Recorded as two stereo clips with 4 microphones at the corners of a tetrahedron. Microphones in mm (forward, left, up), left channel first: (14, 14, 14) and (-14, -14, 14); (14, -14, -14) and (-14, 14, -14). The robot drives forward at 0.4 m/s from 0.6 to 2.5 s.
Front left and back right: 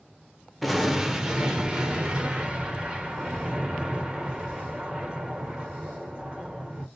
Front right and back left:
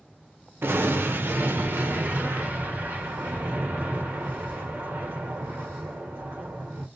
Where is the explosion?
140° left, 0.5 m; by 6.9 s 165° left, 1.2 m.